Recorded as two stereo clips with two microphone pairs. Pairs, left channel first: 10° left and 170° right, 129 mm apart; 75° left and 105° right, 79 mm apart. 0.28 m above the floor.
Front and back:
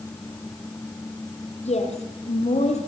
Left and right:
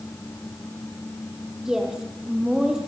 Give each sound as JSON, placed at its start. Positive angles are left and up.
{"t": 1.6, "sound": "a woman speaking", "azimuth_deg": -20, "distance_m": 7.0}